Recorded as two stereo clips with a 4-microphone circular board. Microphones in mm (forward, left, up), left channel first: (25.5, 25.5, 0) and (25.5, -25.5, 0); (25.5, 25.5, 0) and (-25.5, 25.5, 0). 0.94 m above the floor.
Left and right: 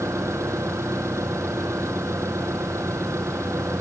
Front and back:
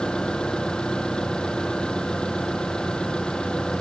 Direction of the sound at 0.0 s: 75° right.